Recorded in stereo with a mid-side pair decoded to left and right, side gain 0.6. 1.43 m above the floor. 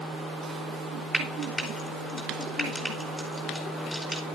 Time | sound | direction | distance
1.1 | frying | 5° left | 4.5 m